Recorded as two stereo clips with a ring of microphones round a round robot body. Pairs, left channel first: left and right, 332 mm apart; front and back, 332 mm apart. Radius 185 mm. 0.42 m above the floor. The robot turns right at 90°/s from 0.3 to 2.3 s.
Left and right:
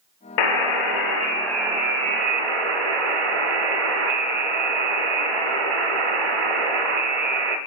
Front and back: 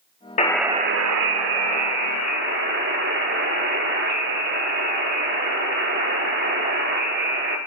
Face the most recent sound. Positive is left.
turn(degrees=-115)